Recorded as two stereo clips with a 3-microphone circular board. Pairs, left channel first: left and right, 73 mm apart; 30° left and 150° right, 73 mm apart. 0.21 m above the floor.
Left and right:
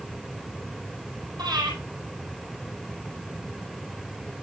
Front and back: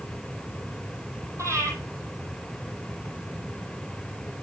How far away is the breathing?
About 4 m.